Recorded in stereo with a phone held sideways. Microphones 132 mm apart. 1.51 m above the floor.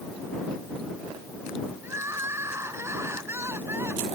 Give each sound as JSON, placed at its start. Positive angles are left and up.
{"t": 1.8, "sound": "crying", "side_deg": -20}